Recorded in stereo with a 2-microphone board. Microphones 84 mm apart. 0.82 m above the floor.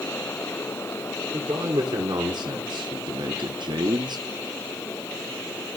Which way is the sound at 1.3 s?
55° right (ahead or behind).